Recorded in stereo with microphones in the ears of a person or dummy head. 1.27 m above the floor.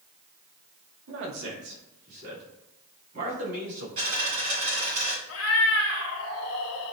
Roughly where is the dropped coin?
Right.